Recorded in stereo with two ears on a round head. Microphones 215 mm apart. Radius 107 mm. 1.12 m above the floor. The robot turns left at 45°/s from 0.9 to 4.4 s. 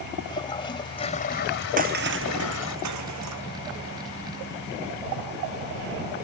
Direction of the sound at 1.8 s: 35° right (ahead or behind).